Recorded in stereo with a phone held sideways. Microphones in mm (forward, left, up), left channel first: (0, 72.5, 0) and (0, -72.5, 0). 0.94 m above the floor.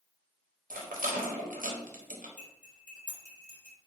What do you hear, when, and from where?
0.7 s a rattle: 90° right, 0.6 m
2.4 s cutlery clinking: 60° left (ahead or behind), 1.1 m